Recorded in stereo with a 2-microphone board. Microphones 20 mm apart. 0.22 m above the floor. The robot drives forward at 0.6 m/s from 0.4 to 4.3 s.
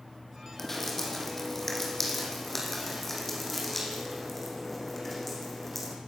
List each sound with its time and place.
0.6 s dripping: 20° left (ahead or behind), 5 m; by 6.0 s 15° left (ahead or behind), 7 m